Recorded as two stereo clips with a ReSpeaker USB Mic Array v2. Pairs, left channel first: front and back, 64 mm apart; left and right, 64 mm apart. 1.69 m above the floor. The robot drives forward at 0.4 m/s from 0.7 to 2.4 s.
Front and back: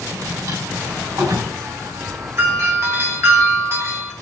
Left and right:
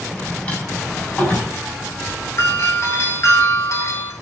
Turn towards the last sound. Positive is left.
turn(degrees=130)